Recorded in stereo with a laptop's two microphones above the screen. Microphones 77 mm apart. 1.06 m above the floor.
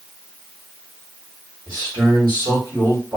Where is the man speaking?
70° right (ahead or behind), 1.5 m.